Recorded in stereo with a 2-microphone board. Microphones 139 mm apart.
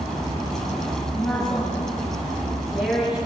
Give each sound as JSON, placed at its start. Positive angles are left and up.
{"t": 1.1, "sound": "a woman speaking", "side_deg": 10, "distance_m": 8.0}